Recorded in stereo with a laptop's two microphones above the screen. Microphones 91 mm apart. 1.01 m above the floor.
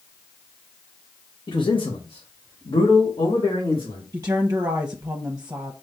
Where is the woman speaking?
35° right (ahead or behind), 0.8 m.